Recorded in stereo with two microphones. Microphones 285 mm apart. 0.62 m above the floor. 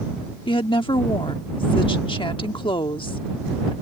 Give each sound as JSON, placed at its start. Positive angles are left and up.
{"t": 0.5, "sound": "a woman speaking", "side_deg": 20}